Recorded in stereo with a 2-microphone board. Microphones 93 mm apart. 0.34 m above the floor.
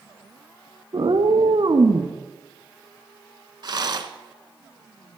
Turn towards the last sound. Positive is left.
turn(degrees=-50)  # may be behind; listen again after turning